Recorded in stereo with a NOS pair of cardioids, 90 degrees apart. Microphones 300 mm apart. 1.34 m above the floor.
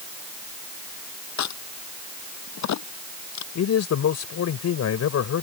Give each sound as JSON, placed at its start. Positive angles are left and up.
{"t": 1.4, "sound": "a crack", "azimuth_deg": 65}
{"t": 3.5, "sound": "a man speaking", "azimuth_deg": 60}